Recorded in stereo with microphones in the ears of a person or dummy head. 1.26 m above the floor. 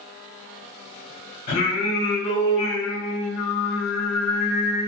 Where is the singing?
45° left (ahead or behind), 1.4 m.